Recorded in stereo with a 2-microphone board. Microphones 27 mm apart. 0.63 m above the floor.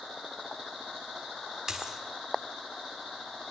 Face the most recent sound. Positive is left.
turn(degrees=-25)  # may be behind; listen again after turning